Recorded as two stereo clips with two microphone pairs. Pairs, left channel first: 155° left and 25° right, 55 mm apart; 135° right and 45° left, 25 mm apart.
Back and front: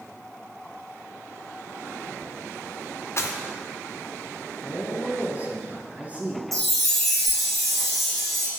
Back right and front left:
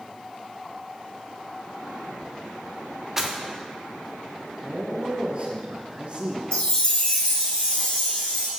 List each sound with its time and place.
3.2 s footsteps: 115° left, 1.0 m
4.6 s a man speaking: 25° left, 1.5 m
6.5 s a chime: 120° right, 1.6 m